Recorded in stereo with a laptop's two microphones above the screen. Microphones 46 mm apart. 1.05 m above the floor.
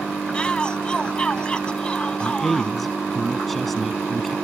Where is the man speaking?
Centre (ahead or behind).